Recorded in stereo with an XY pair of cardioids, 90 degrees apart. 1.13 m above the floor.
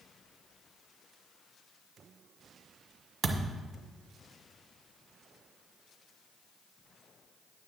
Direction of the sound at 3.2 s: 50° right.